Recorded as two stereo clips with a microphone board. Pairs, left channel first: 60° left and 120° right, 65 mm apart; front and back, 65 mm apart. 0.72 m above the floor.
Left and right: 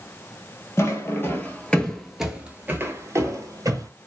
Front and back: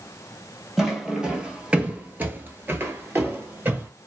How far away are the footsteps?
About 1.2 m.